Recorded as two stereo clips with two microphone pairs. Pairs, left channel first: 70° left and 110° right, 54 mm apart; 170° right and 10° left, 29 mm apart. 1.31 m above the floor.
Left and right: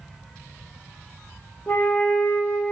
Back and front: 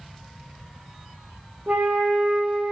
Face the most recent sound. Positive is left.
turn(degrees=15)